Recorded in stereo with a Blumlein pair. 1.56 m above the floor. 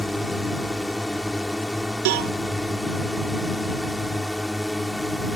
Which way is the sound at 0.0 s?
Straight ahead.